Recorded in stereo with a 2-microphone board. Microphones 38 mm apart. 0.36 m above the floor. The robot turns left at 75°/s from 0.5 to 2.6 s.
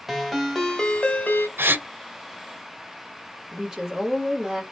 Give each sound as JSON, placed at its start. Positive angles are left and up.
{"t": 0.1, "sound": "a ringtone", "azimuth_deg": -175, "distance_m": 1.0}
{"t": 1.6, "sound": "a gasp", "side_deg": -85, "distance_m": 0.6}
{"t": 3.5, "sound": "a woman speaking", "side_deg": -10, "distance_m": 1.2}